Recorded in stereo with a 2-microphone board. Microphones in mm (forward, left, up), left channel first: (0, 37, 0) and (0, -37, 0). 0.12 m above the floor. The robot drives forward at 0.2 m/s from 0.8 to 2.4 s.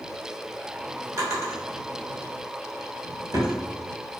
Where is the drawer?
50° right (ahead or behind), 1.2 m; by 3.5 s 45° right (ahead or behind), 1.2 m.